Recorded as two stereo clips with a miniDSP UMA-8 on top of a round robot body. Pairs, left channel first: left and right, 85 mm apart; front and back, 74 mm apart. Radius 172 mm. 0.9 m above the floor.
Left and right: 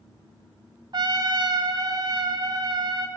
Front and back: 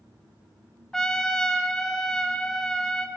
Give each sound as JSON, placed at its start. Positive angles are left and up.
{"t": 0.9, "sound": "a trumpet", "azimuth_deg": -80, "distance_m": 1.2}